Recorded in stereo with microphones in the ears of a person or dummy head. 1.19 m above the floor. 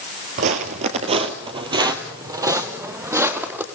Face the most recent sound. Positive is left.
turn(degrees=-15)  # may be behind; listen again after turning